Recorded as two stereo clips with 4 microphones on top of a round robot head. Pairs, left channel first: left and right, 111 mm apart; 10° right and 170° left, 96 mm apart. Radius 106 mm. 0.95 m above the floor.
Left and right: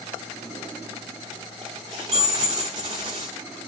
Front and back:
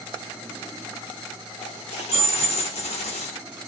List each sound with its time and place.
1.6 s a dropped coin: 30° right, 0.7 m